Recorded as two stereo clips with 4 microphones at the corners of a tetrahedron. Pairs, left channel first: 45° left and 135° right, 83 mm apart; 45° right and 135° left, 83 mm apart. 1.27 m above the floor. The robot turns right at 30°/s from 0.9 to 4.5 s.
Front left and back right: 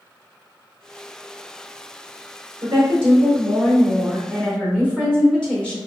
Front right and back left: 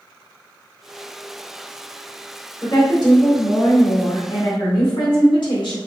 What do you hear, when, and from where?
2.6 s a woman speaking: 90° right, 1.9 m; by 5.8 s 35° right, 1.9 m